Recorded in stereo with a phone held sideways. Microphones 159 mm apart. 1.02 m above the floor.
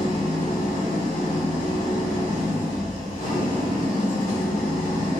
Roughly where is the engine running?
Left.